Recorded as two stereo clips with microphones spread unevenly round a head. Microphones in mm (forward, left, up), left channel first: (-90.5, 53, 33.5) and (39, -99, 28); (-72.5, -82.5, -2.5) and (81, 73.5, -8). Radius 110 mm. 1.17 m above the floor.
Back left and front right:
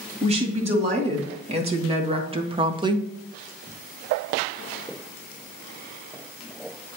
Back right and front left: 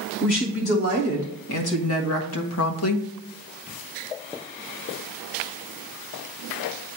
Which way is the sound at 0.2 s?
105° right.